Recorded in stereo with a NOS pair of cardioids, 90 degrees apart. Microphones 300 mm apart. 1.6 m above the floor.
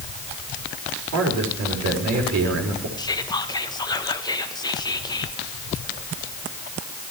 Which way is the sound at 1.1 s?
65° right.